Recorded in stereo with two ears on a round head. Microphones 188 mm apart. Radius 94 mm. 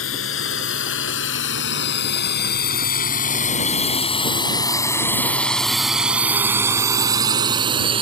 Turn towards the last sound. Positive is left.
turn(degrees=-25)  # may be behind; listen again after turning